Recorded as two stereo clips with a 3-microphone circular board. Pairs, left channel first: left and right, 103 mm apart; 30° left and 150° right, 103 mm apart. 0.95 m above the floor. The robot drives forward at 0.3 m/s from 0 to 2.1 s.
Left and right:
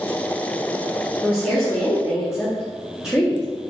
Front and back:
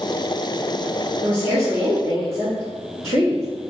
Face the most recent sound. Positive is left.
turn(degrees=-175)